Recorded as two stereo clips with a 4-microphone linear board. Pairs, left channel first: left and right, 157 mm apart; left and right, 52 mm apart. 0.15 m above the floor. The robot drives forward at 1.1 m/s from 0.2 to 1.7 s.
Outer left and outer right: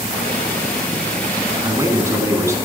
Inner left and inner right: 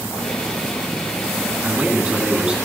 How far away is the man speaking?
About 1.5 m.